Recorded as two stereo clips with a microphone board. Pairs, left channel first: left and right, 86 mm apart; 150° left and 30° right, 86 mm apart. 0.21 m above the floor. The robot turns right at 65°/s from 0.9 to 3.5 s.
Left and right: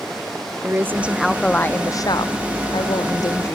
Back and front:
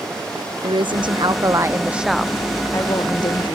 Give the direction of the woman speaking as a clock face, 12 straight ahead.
1 o'clock.